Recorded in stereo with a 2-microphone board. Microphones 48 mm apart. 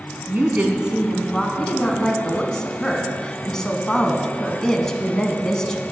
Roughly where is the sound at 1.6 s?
Centre.